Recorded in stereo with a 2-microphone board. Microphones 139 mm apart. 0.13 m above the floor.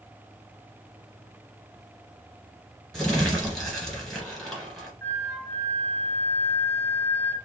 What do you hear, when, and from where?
2.9 s crumpling: centre (ahead or behind), 1.9 m
5.0 s a flute: 15° left (ahead or behind), 1.7 m